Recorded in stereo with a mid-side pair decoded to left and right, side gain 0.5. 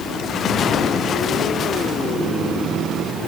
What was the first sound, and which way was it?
Only background noise.